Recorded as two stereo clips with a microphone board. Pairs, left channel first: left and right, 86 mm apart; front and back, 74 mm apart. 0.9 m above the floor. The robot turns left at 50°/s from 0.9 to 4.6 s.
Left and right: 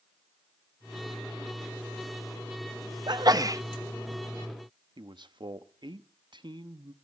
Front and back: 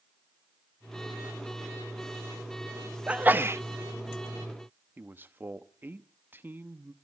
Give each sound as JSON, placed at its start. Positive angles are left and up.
{"t": 3.1, "sound": "a sneeze", "azimuth_deg": -105, "distance_m": 0.8}
{"t": 5.0, "sound": "a man speaking", "azimuth_deg": -115, "distance_m": 0.9}